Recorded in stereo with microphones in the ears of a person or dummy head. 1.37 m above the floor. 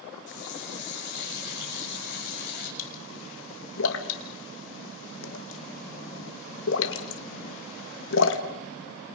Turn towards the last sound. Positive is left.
turn(degrees=70)  # may be behind; listen again after turning